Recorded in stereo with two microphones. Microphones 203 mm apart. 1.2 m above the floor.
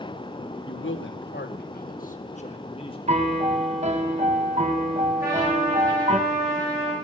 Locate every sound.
0.7 s a man speaking: 85° left, 0.9 m; by 3.0 s 25° left (ahead or behind), 1.3 m
3.1 s a piano: 35° right (ahead or behind), 0.9 m
5.2 s a trumpet: 15° right (ahead or behind), 5.5 m